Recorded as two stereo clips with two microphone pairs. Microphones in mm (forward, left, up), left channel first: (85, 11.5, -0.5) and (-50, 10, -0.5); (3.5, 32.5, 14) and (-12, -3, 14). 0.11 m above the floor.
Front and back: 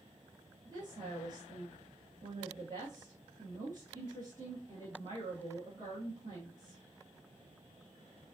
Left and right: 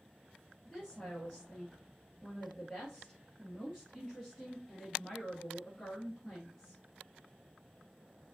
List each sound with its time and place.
0.7 s a woman speaking: 130° left, 2.5 m